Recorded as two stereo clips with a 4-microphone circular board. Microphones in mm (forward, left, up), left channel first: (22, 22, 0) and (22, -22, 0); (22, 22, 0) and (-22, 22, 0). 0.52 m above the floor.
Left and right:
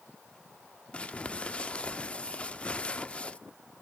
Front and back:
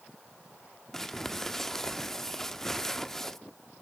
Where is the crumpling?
70° left, 0.7 m.